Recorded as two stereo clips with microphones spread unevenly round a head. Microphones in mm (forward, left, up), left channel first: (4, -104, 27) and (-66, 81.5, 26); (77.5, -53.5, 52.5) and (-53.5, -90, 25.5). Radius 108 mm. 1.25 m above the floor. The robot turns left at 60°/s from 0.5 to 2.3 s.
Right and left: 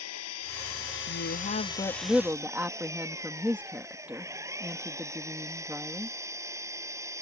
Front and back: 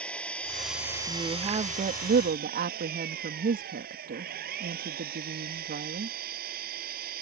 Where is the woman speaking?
95° right; by 6.2 s 170° right.